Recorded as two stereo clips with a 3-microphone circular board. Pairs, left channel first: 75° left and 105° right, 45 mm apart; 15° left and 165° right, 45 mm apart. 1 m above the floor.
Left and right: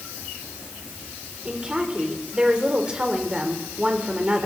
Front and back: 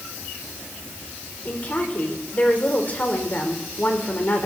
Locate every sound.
1.4 s a woman speaking: 35° right, 3 m